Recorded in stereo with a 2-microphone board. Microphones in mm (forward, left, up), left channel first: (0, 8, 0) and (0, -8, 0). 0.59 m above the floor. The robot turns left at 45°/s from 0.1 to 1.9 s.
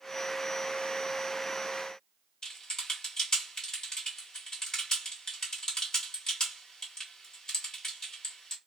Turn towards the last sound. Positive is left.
turn(degrees=35)  # may be behind; listen again after turning